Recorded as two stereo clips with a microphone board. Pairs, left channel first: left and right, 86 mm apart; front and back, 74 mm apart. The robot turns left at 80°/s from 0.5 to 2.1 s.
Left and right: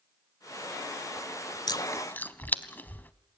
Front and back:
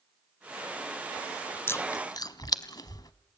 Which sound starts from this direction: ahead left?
Chewing, at 1.7 s.